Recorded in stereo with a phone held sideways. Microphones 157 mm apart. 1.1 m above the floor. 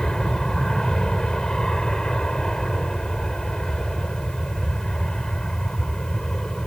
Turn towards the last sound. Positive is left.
turn(degrees=5)  # may be behind; listen again after turning